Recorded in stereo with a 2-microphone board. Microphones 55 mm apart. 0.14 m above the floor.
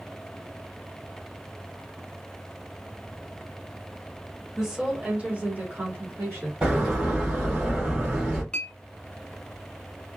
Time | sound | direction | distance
4.6 | a woman speaking | 10° right (ahead or behind) | 1.4 m
6.6 | a door slam | 20° right (ahead or behind) | 1.6 m
8.5 | a clink | 20° left (ahead or behind) | 0.7 m